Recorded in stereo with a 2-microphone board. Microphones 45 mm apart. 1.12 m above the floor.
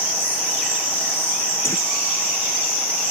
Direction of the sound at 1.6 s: 80° left.